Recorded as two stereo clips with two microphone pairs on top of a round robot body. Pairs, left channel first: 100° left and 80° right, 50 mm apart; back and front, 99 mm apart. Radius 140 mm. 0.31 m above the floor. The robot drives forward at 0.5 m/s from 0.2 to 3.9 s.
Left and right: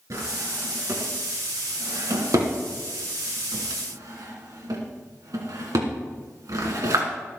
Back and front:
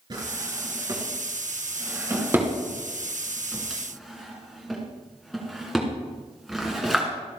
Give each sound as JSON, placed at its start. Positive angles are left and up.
{"t": 0.1, "sound": "a drawer", "azimuth_deg": -50, "distance_m": 3.0}